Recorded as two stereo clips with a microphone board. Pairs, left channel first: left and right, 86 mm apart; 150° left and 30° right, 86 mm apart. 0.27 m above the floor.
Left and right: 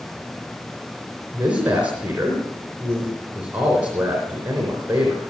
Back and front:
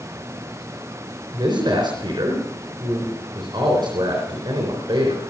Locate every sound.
1.3 s a man speaking: 15° right, 3.5 m